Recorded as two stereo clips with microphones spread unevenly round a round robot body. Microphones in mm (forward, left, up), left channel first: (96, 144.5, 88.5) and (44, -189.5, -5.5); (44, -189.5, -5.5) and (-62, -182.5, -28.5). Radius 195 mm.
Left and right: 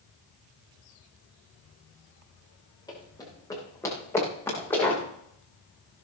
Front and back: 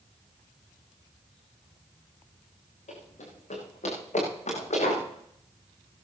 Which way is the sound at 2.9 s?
5° left.